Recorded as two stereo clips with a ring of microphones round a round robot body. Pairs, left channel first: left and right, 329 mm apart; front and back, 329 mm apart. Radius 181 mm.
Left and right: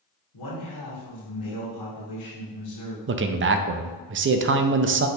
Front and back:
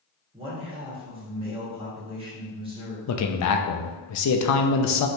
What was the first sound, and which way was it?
A man speaking, 105° left.